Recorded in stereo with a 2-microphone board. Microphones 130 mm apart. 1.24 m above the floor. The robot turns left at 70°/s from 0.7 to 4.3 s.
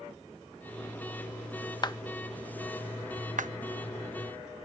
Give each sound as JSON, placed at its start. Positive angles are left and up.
{"t": 1.8, "sound": "a clap", "side_deg": 35}